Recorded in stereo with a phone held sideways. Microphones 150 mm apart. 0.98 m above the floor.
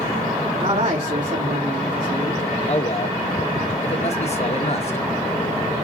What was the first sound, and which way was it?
A man speaking, 55° right (ahead or behind).